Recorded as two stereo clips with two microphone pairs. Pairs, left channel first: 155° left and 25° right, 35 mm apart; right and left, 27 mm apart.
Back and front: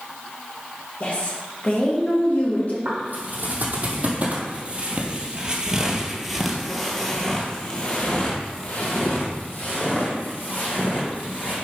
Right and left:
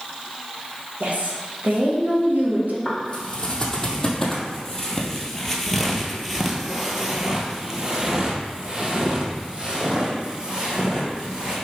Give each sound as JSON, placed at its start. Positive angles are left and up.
{"t": 1.0, "sound": "a woman speaking", "azimuth_deg": 105, "distance_m": 1.9}
{"t": 2.9, "sound": "footsteps", "azimuth_deg": -30, "distance_m": 2.5}